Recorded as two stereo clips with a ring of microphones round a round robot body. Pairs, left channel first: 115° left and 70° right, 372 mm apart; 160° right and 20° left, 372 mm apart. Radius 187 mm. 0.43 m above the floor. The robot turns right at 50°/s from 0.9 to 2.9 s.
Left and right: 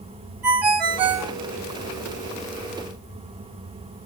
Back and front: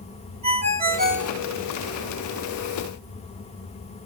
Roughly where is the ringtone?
Ahead right.